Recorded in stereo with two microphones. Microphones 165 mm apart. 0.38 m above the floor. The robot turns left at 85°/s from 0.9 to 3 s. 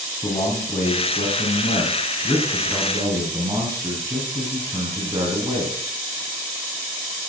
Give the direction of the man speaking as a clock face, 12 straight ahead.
7 o'clock.